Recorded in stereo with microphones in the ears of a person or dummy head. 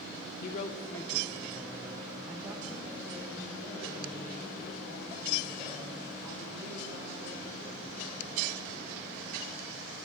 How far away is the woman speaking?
About 0.5 m.